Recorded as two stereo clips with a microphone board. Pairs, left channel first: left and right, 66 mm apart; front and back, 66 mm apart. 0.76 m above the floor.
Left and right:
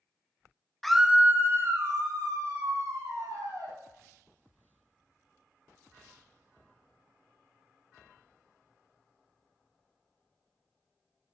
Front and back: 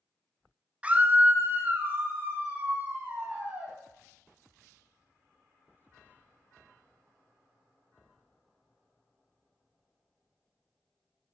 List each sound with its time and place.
0.8 s a scream: 165° left, 0.5 m; by 3.8 s 115° right, 2.5 m